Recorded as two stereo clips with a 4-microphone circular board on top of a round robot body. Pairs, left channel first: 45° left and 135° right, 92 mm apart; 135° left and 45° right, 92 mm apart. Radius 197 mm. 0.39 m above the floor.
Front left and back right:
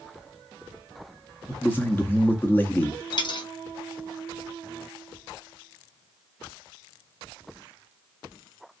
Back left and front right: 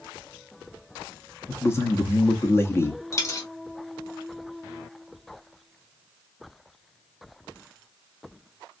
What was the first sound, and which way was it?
A man speaking, 95° left.